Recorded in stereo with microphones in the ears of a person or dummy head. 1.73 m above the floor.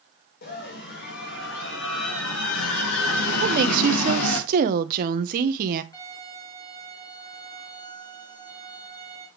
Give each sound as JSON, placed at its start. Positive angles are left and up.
{"t": 0.4, "sound": "a scream", "side_deg": 45, "distance_m": 3.0}
{"t": 3.4, "sound": "a woman speaking", "side_deg": -45, "distance_m": 1.2}
{"t": 5.9, "sound": "a violin", "side_deg": 15, "distance_m": 5.0}